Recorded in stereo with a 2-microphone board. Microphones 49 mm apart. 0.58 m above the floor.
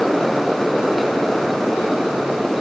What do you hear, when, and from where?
Only background noise.